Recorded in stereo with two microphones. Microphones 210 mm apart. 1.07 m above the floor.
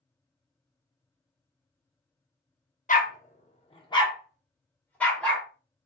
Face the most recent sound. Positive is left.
turn(degrees=5)  # may be behind; listen again after turning